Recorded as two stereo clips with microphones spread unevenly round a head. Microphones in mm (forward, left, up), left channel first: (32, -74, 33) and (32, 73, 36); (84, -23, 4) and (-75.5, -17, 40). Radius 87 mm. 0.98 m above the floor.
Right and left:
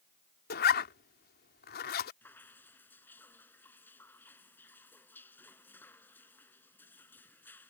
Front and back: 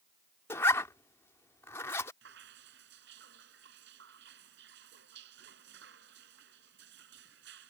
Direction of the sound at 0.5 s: 80° right.